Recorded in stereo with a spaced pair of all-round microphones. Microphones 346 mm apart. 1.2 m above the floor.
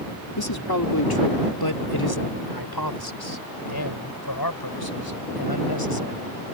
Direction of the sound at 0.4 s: 80° left.